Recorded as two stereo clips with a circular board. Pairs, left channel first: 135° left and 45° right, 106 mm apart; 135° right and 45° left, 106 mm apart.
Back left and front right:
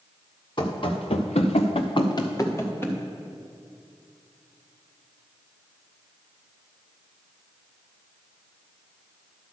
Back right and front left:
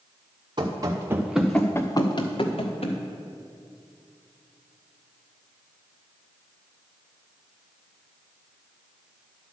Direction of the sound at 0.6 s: 95° left.